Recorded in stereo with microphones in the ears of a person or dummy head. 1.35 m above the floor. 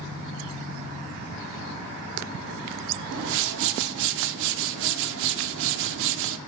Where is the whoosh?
65° right (ahead or behind), 0.6 m.